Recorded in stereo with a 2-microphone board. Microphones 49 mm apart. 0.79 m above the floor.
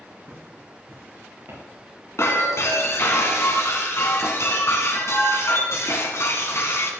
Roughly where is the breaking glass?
Left.